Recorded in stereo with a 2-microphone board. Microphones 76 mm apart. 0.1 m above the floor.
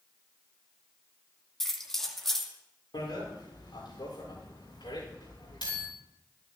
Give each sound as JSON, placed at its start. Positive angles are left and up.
{"t": 1.6, "sound": "keys jangling", "side_deg": 5, "distance_m": 2.5}
{"t": 2.9, "sound": "a bicycle bell", "side_deg": 80, "distance_m": 9.5}